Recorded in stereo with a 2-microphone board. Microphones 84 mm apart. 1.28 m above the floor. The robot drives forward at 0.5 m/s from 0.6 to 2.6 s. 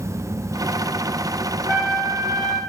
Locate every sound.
1.7 s a trumpet: 55° right (ahead or behind), 1.7 m; by 2.6 s 45° right (ahead or behind), 2.0 m